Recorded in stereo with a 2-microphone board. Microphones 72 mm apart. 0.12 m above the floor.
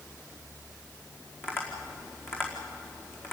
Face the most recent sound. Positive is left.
turn(degrees=30)  # may be behind; listen again after turning